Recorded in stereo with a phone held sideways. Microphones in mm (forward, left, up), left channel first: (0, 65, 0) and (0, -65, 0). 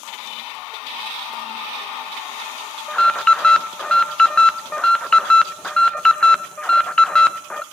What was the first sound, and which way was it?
An alarm, 5° left (ahead or behind).